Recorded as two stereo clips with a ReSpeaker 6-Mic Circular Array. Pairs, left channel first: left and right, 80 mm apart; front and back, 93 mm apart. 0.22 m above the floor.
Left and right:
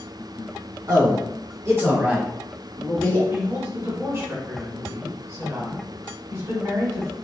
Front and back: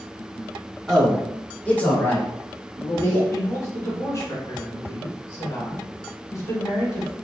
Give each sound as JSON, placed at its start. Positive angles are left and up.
{"t": 0.9, "sound": "a man speaking", "azimuth_deg": -85, "distance_m": 1.8}
{"t": 3.3, "sound": "a woman speaking", "azimuth_deg": -45, "distance_m": 1.6}